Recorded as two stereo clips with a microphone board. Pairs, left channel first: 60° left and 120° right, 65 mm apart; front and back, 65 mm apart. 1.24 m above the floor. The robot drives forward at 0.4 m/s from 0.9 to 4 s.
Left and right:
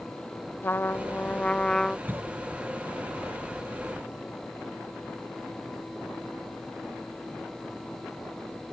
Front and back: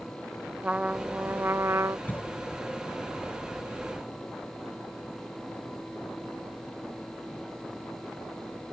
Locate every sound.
0.6 s a trumpet: 110° left; by 2.0 s 140° left
2.1 s a cough: 65° right